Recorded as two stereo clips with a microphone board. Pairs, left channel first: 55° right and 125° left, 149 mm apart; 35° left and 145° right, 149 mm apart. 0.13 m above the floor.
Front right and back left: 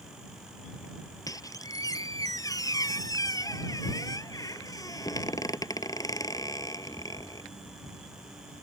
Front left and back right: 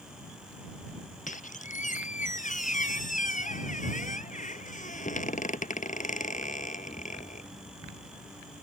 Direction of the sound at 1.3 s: 10° left.